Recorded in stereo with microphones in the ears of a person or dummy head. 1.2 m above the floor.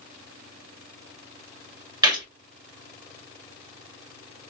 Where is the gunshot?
15° right (ahead or behind), 1.8 m.